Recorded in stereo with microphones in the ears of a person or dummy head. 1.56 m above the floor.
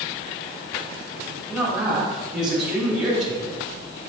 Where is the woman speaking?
5° right (ahead or behind), 3 m.